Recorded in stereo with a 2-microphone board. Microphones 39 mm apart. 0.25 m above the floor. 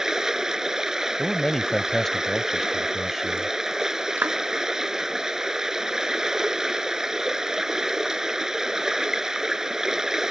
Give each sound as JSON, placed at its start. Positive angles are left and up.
{"t": 0.0, "sound": "running water", "side_deg": -15}
{"t": 1.2, "sound": "a man speaking", "side_deg": 10}
{"t": 4.2, "sound": "a clap", "side_deg": -55}